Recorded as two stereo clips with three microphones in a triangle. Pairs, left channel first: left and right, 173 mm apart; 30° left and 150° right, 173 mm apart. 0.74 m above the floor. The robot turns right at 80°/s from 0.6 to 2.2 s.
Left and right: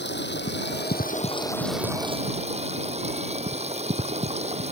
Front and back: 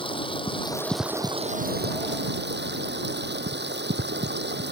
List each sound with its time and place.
0.0 s running water: 90° left; by 4.7 s 140° right